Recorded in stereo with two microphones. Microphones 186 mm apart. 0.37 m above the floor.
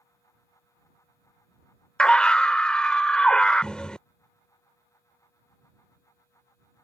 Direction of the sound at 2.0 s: 5° left (ahead or behind).